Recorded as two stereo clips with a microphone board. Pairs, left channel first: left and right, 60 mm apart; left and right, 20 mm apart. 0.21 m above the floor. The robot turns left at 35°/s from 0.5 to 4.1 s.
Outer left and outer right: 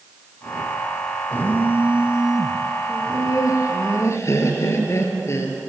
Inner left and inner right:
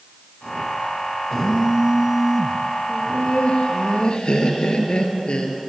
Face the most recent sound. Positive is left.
turn(degrees=55)